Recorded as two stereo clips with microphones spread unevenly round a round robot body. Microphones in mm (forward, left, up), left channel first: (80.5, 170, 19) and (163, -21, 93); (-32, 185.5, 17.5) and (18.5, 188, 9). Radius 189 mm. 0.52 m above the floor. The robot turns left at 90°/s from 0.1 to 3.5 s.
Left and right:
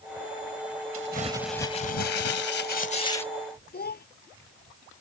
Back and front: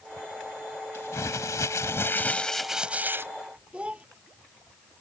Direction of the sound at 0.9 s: 115° right.